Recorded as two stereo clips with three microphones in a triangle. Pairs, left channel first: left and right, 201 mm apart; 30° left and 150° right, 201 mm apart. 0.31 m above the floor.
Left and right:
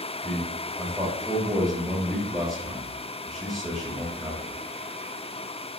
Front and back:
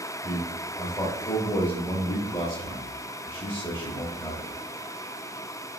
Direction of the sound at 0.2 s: Straight ahead.